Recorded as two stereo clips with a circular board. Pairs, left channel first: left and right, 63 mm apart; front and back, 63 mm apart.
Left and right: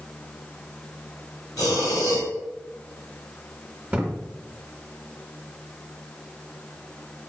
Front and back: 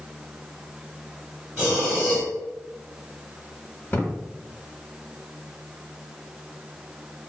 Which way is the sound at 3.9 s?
30° right.